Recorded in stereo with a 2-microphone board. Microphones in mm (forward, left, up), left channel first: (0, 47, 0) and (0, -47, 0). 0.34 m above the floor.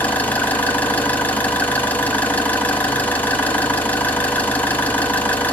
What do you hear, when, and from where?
0.0 s an engine running: 15° left (ahead or behind), 1.6 m